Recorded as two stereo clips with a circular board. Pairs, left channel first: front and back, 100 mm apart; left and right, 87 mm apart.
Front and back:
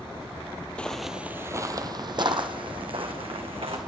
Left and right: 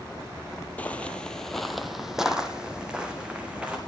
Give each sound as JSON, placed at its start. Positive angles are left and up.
{"t": 0.8, "sound": "footsteps", "azimuth_deg": 55, "distance_m": 0.6}